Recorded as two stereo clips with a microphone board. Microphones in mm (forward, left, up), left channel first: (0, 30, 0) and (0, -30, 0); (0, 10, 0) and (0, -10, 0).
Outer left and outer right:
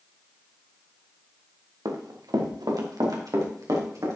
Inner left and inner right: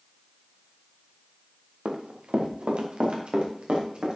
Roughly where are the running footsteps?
Right.